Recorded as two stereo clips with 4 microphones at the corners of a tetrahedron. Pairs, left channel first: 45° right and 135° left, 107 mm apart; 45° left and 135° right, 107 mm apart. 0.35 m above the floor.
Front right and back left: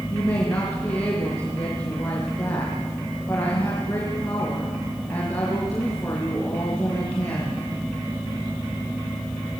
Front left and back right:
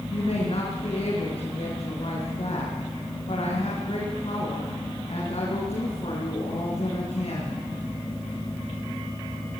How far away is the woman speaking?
About 5.5 m.